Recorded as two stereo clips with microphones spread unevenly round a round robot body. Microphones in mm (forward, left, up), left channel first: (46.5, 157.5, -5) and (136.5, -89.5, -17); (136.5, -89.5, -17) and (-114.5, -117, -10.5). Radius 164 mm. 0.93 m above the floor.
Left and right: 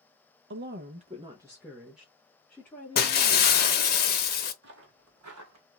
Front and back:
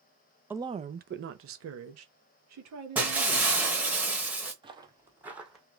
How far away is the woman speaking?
About 0.6 m.